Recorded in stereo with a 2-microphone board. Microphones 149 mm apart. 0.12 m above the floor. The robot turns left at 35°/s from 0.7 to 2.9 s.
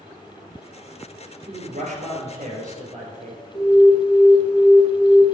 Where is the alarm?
35° left (ahead or behind), 1.2 m.